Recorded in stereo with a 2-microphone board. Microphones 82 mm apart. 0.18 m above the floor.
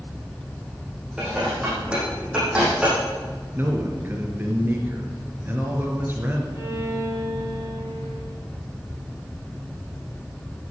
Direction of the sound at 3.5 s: 25° right (ahead or behind).